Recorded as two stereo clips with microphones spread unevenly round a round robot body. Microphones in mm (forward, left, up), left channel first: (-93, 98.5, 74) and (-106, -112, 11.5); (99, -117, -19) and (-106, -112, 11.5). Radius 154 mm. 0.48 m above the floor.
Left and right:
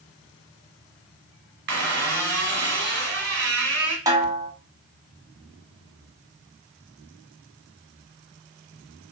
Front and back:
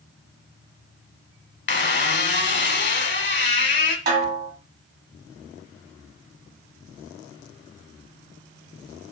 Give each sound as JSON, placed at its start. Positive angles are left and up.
{"t": 1.7, "sound": "a squeak", "azimuth_deg": -40, "distance_m": 1.2}
{"t": 4.1, "sound": "a snare drum", "azimuth_deg": -150, "distance_m": 1.5}